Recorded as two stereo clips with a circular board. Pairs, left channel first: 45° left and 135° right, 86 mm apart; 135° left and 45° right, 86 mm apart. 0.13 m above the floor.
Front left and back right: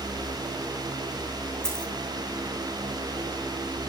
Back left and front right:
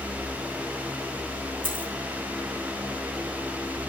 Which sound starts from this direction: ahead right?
A dropped coin, at 1.6 s.